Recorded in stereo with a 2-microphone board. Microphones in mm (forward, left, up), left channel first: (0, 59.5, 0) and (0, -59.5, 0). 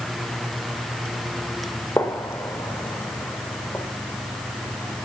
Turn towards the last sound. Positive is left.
turn(degrees=20)  # may be behind; listen again after turning